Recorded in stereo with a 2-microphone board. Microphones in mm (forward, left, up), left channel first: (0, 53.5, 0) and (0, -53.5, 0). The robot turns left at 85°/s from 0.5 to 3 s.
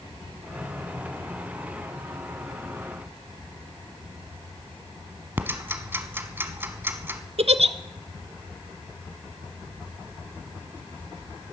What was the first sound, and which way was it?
Ticking, 20° right (ahead or behind).